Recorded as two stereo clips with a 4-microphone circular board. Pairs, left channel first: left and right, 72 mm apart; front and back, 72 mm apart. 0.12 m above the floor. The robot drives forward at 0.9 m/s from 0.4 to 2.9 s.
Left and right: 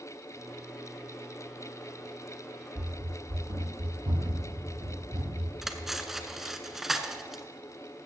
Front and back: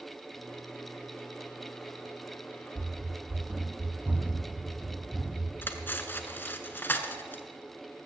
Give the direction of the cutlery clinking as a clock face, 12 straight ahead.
12 o'clock.